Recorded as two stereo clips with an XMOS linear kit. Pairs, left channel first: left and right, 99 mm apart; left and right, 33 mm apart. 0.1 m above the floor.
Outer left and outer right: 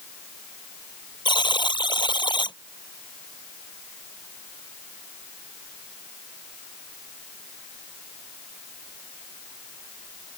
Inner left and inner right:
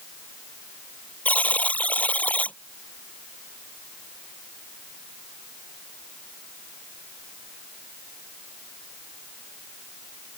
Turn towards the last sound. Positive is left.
turn(degrees=50)  # may be behind; listen again after turning